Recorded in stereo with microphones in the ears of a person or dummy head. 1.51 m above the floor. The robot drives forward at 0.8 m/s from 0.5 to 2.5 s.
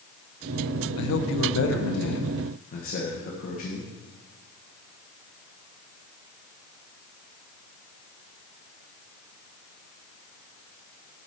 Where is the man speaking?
75° left (ahead or behind), 1.0 m; by 3.9 s 45° left (ahead or behind), 1.4 m.